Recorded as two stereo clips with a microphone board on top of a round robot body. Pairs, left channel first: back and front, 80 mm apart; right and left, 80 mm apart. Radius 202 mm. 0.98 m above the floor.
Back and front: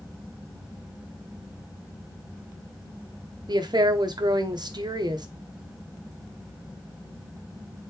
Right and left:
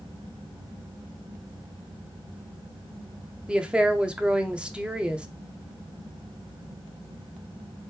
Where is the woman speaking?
15° left, 1.2 m.